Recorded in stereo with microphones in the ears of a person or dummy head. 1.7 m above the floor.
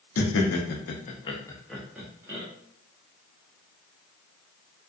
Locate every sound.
0.2 s laughter: 75° left (ahead or behind), 0.7 m; by 2.5 s 20° right (ahead or behind), 0.8 m